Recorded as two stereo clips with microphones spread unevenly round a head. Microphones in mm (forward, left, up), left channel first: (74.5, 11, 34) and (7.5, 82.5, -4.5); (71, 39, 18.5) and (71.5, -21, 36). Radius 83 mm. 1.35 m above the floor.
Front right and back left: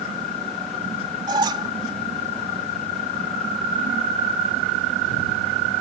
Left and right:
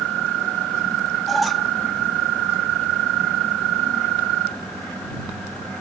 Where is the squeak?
155° right.